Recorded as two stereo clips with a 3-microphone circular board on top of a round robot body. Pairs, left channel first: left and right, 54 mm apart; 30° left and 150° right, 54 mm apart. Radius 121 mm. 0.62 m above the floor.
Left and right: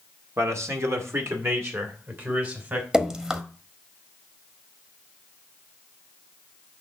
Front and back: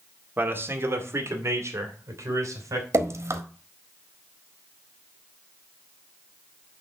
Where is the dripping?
165° right, 1.4 m.